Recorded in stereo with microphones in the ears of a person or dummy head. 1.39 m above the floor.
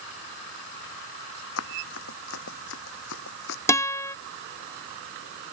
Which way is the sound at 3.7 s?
15° left (ahead or behind).